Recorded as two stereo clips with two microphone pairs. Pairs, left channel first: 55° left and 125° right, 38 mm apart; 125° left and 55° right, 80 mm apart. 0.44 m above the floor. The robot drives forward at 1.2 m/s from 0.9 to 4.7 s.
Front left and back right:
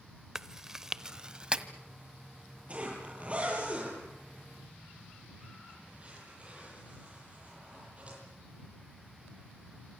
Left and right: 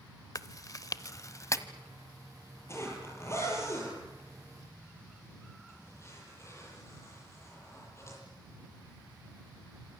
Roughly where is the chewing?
Behind.